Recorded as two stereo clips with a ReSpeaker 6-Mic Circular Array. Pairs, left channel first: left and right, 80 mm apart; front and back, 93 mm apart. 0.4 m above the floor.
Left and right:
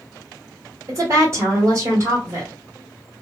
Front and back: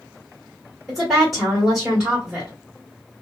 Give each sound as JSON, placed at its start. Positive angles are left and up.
{"t": 0.9, "sound": "a woman speaking", "azimuth_deg": -90, "distance_m": 1.4}